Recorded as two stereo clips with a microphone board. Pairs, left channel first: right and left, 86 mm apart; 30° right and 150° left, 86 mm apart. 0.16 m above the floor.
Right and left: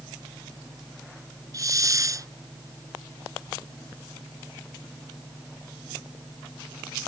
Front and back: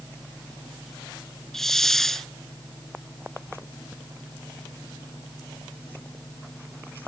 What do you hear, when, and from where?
1.5 s a hiss: 55° left